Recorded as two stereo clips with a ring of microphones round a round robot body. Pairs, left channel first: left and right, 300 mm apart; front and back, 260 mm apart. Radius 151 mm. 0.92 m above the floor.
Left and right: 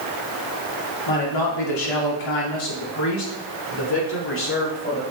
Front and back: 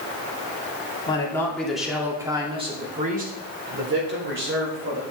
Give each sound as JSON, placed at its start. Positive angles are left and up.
{"t": 1.1, "sound": "a man speaking", "azimuth_deg": 75, "distance_m": 2.0}